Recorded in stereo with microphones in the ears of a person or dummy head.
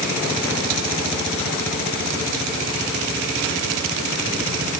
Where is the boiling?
I don't hear boiling.